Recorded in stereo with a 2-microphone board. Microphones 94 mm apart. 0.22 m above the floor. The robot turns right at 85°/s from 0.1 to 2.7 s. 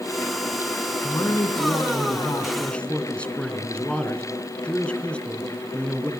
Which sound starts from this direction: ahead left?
A man speaking, at 1.0 s.